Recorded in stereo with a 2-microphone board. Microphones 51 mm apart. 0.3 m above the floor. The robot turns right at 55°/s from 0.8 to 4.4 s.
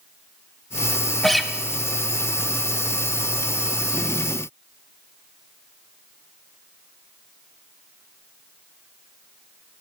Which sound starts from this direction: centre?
A guitar, at 1.2 s.